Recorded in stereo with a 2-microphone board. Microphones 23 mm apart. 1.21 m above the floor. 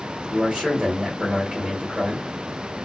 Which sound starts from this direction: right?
A man speaking, at 0.3 s.